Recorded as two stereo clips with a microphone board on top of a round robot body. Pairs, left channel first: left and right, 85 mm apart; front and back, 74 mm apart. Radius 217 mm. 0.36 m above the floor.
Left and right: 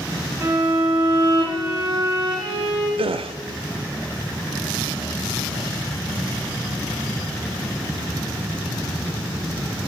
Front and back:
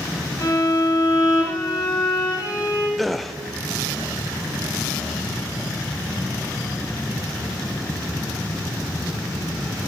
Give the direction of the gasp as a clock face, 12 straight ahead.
3 o'clock.